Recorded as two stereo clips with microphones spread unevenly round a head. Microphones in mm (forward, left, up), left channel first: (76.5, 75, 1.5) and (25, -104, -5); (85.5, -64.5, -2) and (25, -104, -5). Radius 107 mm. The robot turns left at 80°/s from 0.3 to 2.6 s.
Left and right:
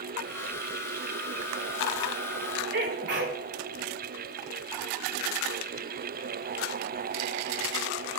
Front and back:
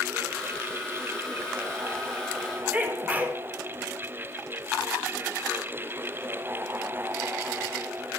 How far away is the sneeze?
About 3.5 m.